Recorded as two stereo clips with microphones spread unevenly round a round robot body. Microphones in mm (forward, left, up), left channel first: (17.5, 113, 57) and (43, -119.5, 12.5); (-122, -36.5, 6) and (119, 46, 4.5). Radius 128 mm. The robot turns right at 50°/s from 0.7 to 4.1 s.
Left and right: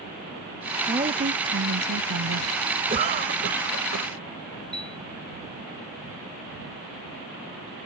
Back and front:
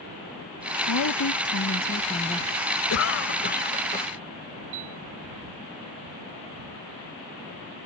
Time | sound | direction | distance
0.9 | a woman speaking | 155° right | ?
2.9 | a cough | 145° right | ?
4.7 | a piano | 10° left | ?